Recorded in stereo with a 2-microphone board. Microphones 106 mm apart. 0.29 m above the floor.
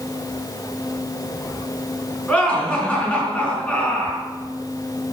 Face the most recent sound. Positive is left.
turn(degrees=10)  # may be behind; listen again after turning